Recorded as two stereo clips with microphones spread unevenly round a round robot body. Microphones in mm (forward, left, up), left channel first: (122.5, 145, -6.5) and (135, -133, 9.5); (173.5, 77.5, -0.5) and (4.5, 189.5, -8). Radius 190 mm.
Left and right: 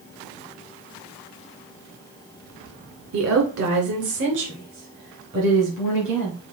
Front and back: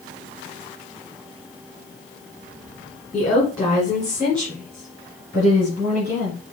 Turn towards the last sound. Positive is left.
turn(degrees=-145)